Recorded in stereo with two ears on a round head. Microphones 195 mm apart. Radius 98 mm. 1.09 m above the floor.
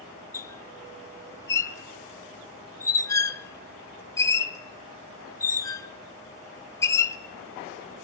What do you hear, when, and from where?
0.3 s a squeak: 15° left (ahead or behind), 0.9 m